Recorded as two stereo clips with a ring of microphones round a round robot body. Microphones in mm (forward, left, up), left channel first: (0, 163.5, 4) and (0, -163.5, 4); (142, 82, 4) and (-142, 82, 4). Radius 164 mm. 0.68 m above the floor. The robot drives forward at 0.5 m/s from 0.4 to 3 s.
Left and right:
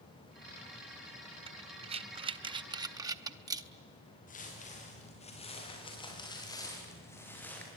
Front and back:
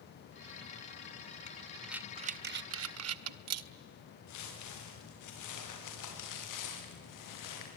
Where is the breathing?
35° right, 0.5 m; by 3.7 s 165° right, 0.8 m.